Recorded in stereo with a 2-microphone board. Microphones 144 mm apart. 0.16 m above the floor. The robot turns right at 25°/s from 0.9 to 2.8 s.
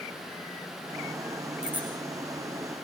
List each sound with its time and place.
1.6 s a bicycle bell: 5° right (ahead or behind), 8 m; by 1.9 s 15° right (ahead or behind), 8 m